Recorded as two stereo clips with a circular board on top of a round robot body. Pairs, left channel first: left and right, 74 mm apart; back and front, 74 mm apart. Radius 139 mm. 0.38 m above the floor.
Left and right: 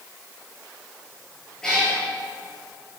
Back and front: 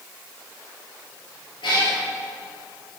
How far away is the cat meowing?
About 3.5 m.